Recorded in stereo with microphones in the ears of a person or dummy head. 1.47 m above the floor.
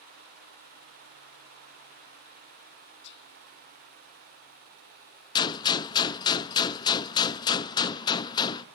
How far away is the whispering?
About 0.7 m.